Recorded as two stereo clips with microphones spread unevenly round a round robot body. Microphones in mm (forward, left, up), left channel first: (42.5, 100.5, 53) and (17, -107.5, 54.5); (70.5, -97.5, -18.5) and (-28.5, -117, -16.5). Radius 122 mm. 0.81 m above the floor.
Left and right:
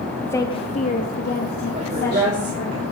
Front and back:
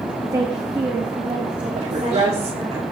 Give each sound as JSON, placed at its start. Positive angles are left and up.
{"t": 0.2, "sound": "a woman speaking", "azimuth_deg": 160, "distance_m": 0.8}
{"t": 1.8, "sound": "a woman speaking", "azimuth_deg": -155, "distance_m": 2.5}